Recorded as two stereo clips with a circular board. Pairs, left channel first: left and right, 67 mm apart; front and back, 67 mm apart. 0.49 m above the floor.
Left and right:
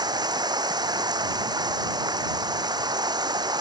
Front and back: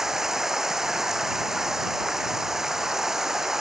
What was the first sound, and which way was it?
Running water, 95° right.